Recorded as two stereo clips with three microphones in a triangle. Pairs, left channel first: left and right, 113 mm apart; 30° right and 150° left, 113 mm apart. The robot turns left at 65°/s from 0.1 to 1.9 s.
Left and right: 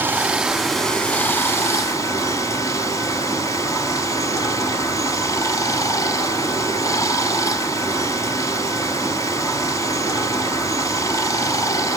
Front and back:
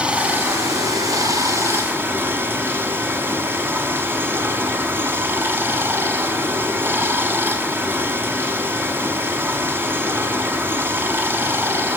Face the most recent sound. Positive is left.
turn(degrees=100)